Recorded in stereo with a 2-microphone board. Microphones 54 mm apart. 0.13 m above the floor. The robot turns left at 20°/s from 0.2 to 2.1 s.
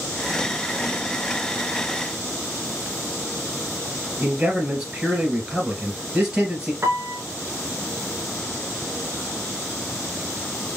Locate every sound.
4.2 s a man speaking: 10° right (ahead or behind), 2.5 m
6.8 s a piano: 45° right (ahead or behind), 0.7 m